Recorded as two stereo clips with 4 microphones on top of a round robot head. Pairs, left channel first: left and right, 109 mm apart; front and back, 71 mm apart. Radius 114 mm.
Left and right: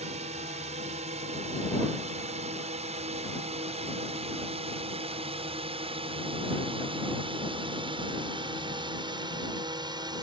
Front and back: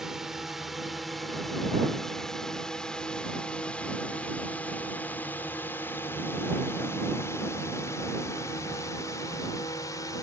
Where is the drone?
95° right; by 10.2 s 40° right.